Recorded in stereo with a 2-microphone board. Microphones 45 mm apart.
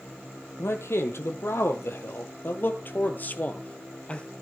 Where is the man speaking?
70° left (ahead or behind), 3 m; by 4.3 s 25° left (ahead or behind), 2 m.